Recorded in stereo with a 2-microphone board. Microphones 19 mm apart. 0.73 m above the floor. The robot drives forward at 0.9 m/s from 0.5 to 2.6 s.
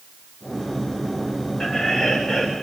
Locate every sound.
1.6 s laughter: 45° left (ahead or behind), 2 m; by 2.5 s 35° left (ahead or behind), 3 m